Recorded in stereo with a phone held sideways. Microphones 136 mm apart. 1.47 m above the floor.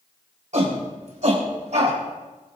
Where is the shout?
60° right (ahead or behind), 5.5 m; by 2.0 s 55° right (ahead or behind), 6.5 m.